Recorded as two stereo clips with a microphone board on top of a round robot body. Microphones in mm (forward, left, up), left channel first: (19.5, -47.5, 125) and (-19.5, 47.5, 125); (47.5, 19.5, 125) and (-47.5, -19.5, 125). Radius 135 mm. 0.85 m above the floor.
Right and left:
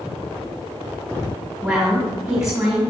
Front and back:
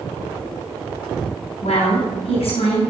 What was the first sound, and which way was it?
A woman speaking, 30° left.